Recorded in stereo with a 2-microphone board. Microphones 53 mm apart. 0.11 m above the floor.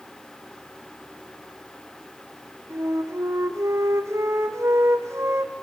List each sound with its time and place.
2.7 s a flute: 60° right (ahead or behind), 1.3 m